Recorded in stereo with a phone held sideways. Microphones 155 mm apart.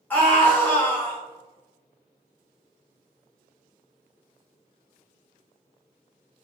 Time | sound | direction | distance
0.1 | a scream | 10° left (ahead or behind) | 1.8 m